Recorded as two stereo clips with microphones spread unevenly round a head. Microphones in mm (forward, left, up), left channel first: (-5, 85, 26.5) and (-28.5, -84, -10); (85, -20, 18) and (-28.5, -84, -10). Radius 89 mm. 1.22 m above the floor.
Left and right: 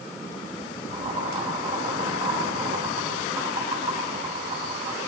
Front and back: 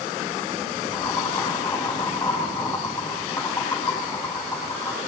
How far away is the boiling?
About 8.5 m.